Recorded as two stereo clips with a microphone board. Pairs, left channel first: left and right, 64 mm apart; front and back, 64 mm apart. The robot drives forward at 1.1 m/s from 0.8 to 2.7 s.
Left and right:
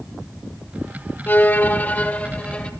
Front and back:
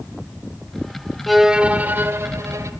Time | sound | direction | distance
1.3 | a violin | 85° left | 1.1 m